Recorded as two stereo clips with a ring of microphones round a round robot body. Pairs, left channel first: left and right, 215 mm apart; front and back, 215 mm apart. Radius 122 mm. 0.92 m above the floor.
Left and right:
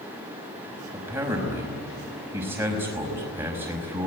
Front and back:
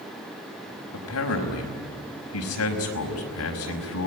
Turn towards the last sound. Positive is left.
turn(degrees=-10)